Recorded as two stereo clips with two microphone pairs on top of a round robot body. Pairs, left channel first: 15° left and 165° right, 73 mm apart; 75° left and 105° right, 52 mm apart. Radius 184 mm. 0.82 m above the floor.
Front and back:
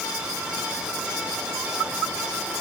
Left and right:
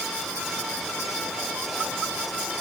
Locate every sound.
Only background noise.